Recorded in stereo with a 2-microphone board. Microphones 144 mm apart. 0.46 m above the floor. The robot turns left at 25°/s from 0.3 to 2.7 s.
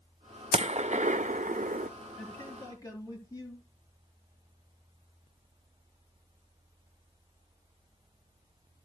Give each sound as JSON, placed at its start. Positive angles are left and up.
{"t": 0.5, "sound": "a gunshot", "side_deg": -45, "distance_m": 0.5}
{"t": 2.2, "sound": "a man speaking", "side_deg": 10, "distance_m": 9.5}